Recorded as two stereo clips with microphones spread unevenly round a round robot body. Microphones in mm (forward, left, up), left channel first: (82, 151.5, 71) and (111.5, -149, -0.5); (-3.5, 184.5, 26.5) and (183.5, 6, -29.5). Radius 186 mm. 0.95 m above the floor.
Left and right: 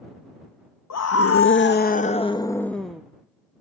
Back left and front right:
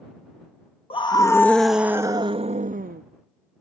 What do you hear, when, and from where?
0.9 s a scream: 65° left; by 3.0 s 5° right